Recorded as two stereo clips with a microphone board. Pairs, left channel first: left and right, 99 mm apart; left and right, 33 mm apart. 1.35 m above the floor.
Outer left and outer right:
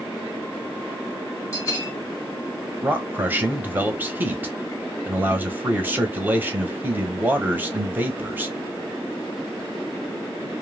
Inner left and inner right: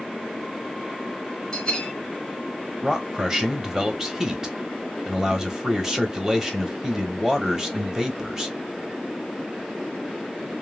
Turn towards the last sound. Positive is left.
turn(degrees=-20)  # may be behind; listen again after turning